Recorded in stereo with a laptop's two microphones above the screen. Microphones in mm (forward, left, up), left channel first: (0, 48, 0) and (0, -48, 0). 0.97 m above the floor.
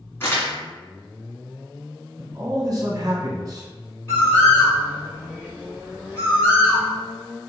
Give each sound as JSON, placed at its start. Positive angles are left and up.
{"t": 0.2, "sound": "crumpling", "side_deg": 25, "distance_m": 1.5}
{"t": 2.2, "sound": "a man speaking", "side_deg": -40, "distance_m": 1.1}
{"t": 4.1, "sound": "a bird", "side_deg": 25, "distance_m": 1.5}